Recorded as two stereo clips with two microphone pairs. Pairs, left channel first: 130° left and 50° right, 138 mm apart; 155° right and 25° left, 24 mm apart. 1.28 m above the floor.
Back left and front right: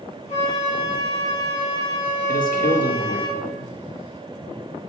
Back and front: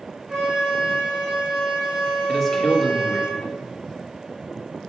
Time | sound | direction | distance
0.3 | a flute | 90° left | 3 m
2.3 | a man speaking | 120° left | 1.4 m